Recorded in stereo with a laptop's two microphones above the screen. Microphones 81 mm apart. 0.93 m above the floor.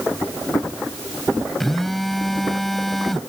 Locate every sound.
1.6 s a phone buzzing: centre (ahead or behind)